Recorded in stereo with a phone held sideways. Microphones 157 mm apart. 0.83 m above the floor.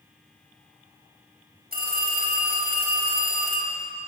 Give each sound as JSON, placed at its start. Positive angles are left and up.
{"t": 1.7, "sound": "a phone ringing", "side_deg": -80, "distance_m": 3.5}